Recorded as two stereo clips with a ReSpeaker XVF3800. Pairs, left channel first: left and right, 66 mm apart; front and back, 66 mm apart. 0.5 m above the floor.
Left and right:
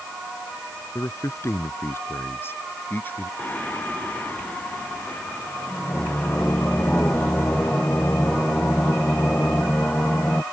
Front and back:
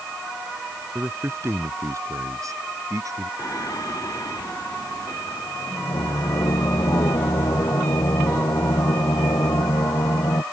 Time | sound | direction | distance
0.9 | a man speaking | 125° left | ?
3.4 | singing | 25° left | ?